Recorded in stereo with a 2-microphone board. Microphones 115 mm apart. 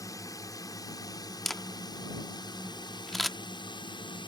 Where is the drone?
30° left (ahead or behind); by 4.3 s 45° left (ahead or behind).